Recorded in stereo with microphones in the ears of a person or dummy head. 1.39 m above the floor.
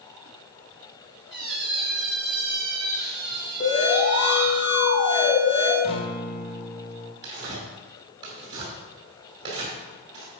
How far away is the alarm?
About 4 m.